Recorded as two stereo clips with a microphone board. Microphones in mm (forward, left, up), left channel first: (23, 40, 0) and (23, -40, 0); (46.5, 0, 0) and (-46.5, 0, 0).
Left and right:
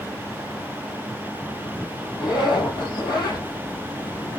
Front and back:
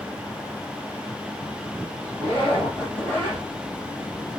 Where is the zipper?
65° left, 3 m.